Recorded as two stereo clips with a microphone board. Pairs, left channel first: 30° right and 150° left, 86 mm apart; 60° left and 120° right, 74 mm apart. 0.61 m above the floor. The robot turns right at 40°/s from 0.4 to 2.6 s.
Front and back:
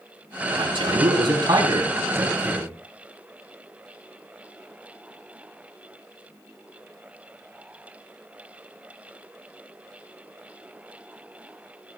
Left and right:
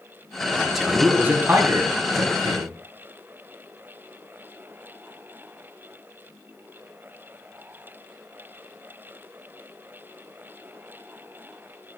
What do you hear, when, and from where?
0.6 s a man speaking: 140° left, 5 m; by 2.8 s 140° right, 5 m